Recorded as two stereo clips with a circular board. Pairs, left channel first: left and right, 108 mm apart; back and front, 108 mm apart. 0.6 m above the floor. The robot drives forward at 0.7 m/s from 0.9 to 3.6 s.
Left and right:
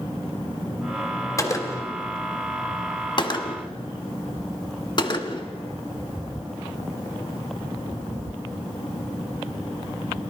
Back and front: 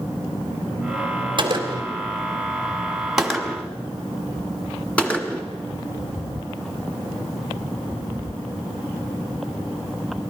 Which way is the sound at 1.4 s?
30° left.